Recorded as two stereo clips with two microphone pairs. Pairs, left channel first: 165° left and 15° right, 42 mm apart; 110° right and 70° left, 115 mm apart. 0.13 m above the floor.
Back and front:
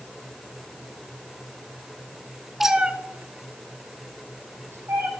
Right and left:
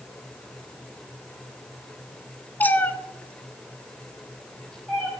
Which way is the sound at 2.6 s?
95° right.